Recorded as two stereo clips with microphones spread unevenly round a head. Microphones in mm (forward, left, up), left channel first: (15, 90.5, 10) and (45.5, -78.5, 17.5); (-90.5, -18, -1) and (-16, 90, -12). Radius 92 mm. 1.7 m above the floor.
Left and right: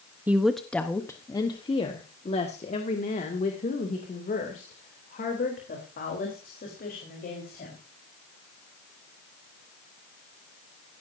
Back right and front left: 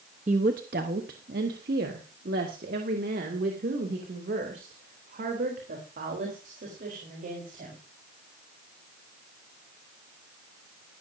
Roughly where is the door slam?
No door slam in this recording.